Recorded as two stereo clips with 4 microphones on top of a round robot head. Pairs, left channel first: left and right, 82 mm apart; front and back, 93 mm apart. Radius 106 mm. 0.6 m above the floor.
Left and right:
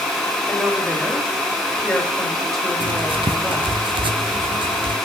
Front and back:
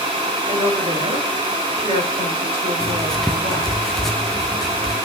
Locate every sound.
0.5 s a woman speaking: straight behind, 4 m
2.8 s writing: 85° right, 0.7 m